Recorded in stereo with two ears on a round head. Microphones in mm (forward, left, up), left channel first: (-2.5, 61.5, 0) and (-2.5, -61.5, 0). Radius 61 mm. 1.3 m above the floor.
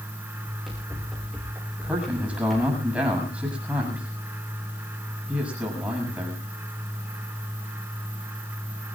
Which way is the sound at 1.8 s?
10° right (ahead or behind).